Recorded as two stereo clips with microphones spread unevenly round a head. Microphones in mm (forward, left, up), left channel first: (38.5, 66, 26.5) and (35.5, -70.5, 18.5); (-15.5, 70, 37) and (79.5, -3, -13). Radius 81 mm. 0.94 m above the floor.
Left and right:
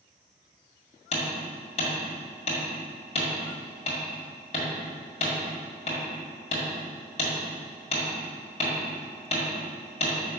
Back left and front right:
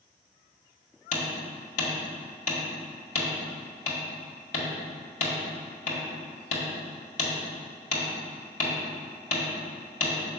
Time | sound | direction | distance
1.1 | hammering | 145° left | 1.9 m